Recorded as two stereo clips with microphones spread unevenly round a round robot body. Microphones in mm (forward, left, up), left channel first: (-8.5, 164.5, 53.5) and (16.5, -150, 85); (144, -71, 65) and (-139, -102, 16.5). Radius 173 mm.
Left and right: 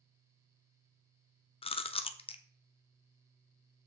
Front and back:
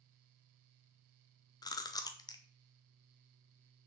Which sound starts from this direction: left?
Chewing, at 1.6 s.